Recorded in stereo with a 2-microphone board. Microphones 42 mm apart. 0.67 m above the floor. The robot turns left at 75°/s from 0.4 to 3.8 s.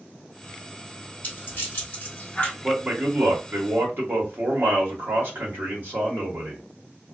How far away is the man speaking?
About 1.2 m.